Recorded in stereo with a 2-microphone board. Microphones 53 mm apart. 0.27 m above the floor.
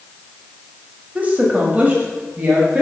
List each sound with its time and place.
1.1 s a woman speaking: 25° right (ahead or behind), 1.0 m